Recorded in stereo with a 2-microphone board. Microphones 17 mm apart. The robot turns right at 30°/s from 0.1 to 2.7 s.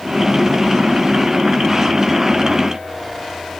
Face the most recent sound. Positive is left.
No sound to turn to.